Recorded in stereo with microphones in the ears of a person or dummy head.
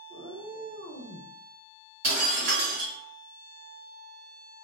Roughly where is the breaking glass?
Right.